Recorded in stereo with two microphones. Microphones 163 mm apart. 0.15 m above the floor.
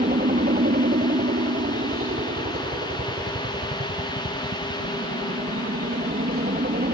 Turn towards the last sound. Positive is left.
turn(degrees=-65)  # may be behind; listen again after turning